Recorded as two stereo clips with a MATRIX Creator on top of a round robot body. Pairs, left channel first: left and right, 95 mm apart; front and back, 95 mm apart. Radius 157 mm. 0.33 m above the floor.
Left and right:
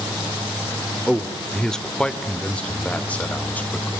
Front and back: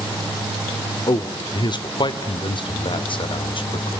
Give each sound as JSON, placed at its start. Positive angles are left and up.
{"t": 1.1, "sound": "a man speaking", "azimuth_deg": 5, "distance_m": 1.7}